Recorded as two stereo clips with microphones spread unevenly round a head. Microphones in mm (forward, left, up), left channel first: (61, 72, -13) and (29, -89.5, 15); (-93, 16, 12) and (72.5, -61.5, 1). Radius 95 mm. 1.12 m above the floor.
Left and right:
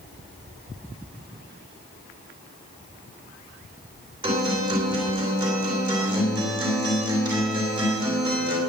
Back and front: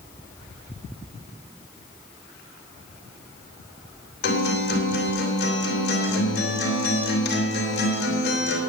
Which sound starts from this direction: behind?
A guitar, at 4.2 s.